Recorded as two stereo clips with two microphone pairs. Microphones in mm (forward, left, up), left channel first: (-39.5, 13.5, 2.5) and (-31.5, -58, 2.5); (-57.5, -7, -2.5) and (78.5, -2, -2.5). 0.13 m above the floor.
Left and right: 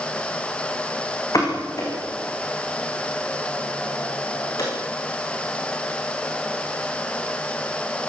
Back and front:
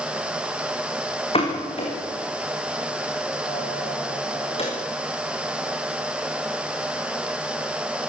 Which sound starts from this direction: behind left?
A pop, at 1.3 s.